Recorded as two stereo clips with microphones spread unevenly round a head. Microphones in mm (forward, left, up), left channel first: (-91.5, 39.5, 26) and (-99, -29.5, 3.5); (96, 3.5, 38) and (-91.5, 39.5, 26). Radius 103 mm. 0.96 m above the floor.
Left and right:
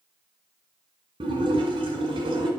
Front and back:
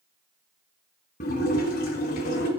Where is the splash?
60° right, 1.6 m.